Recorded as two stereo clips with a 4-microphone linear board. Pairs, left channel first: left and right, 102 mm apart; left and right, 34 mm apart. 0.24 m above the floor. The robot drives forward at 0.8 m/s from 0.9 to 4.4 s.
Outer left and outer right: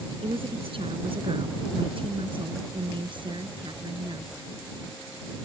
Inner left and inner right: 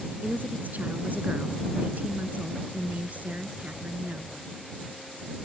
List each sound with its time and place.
0.2 s a woman speaking: 65° right (ahead or behind); by 4.4 s 45° right (ahead or behind)